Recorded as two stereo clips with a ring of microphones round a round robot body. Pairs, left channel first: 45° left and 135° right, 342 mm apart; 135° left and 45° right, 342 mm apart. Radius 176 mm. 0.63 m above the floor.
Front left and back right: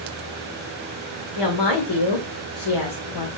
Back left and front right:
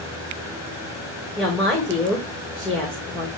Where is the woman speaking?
45° left, 2.5 m.